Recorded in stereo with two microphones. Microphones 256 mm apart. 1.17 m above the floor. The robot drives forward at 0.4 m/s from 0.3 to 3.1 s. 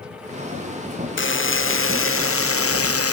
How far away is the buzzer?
About 2 m.